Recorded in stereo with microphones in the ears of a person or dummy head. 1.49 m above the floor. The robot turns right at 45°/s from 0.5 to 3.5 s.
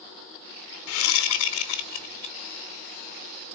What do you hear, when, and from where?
0.9 s a whoosh: 80° left, 0.8 m; by 2.4 s 145° left, 0.8 m